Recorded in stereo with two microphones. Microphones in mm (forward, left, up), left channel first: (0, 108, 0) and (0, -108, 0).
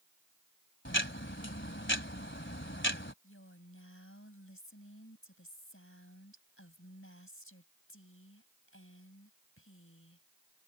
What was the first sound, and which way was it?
Ticking, 60° left (ahead or behind).